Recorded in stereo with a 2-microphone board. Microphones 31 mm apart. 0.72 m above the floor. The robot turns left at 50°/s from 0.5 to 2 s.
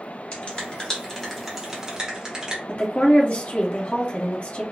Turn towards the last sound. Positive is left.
turn(degrees=45)  # may be behind; listen again after turning